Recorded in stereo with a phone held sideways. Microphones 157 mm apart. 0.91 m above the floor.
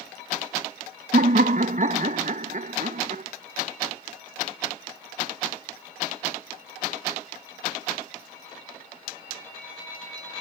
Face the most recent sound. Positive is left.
turn(degrees=-55)  # may be behind; listen again after turning